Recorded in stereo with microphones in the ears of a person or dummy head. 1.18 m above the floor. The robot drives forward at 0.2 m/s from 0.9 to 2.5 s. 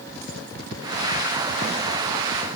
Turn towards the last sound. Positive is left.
No sound to turn to.